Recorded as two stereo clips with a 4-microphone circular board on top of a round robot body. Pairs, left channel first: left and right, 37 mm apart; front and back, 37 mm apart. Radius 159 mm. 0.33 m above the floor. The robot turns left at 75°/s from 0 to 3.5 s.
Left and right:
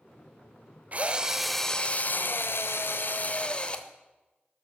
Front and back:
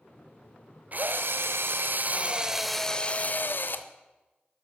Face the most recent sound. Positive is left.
turn(degrees=25)